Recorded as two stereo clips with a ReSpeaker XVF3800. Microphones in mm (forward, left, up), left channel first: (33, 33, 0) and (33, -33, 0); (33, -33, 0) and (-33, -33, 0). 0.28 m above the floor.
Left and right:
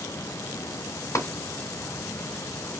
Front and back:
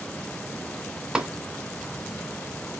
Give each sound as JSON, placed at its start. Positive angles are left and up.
{"t": 1.1, "sound": "tapping", "azimuth_deg": 105, "distance_m": 1.6}